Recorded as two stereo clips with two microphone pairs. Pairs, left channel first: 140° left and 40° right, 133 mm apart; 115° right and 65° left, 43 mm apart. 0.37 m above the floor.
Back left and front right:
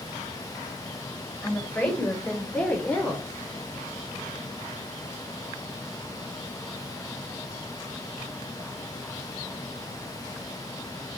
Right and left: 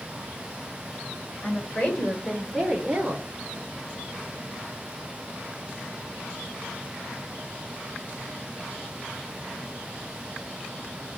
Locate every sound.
1.4 s a woman speaking: 145° right, 1.4 m; by 3.3 s 65° left, 1.1 m